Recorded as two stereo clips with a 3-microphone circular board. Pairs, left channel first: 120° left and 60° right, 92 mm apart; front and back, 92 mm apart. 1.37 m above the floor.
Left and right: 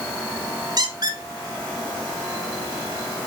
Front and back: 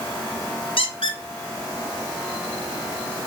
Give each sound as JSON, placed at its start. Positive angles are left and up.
{"t": 0.8, "sound": "a squeak", "azimuth_deg": -15, "distance_m": 1.1}